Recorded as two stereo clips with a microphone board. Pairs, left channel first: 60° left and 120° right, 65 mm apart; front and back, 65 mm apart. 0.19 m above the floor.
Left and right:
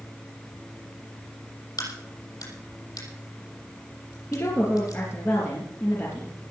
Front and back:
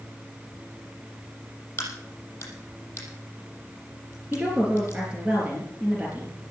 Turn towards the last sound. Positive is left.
turn(degrees=110)